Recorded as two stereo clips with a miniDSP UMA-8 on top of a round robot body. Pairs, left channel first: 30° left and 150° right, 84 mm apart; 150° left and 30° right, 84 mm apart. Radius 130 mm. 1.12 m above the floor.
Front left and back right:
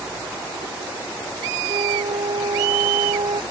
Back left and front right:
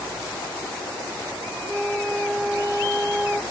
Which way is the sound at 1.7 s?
115° right.